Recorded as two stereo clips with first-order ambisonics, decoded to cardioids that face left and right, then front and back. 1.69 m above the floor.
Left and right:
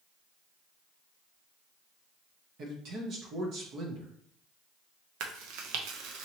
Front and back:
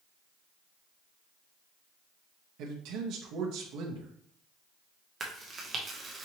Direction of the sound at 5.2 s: 110° right.